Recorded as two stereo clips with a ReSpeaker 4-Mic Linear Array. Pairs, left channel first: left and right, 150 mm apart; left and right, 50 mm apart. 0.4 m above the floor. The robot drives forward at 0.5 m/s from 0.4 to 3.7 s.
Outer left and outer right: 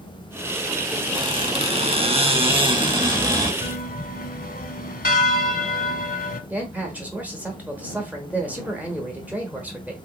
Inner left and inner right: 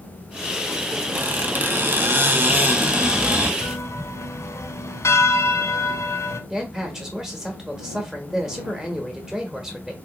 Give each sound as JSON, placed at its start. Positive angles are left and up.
{"t": 1.1, "sound": "a squeak", "side_deg": -35, "distance_m": 0.8}
{"t": 3.6, "sound": "a bell", "side_deg": 75, "distance_m": 0.6}
{"t": 6.5, "sound": "a man speaking", "side_deg": -10, "distance_m": 0.9}